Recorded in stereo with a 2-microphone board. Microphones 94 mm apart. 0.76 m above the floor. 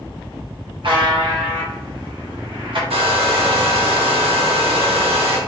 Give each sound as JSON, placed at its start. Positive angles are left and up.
{"t": 0.8, "sound": "a buzzer", "side_deg": -60, "distance_m": 0.9}
{"t": 2.9, "sound": "a hair dryer", "side_deg": -80, "distance_m": 1.0}